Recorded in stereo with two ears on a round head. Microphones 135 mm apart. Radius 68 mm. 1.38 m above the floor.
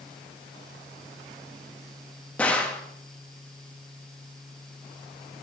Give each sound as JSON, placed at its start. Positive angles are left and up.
{"t": 2.4, "sound": "a gunshot", "side_deg": 10, "distance_m": 1.1}